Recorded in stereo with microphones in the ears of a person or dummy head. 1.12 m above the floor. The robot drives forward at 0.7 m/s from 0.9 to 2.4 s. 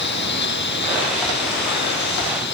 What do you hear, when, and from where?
0.0 s a lawn mower: 55° left (ahead or behind)